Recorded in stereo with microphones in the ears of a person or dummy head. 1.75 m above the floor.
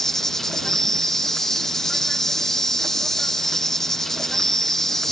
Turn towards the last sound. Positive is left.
turn(degrees=5)  # may be behind; listen again after turning